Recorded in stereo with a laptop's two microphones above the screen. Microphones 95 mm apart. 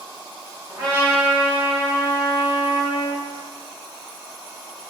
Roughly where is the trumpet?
Right.